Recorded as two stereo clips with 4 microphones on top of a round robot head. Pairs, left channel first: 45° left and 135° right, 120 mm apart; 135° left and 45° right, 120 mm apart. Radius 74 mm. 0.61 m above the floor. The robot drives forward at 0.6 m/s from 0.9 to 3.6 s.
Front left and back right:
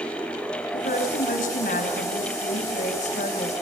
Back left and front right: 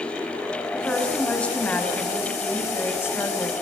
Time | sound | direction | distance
0.7 | a woman speaking | 55° left | 6 m